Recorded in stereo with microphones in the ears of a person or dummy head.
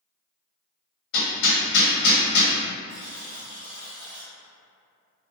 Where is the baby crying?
I don't hear a baby crying.